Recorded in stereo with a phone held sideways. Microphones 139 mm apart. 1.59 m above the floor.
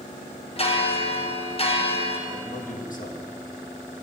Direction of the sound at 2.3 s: 70° left (ahead or behind).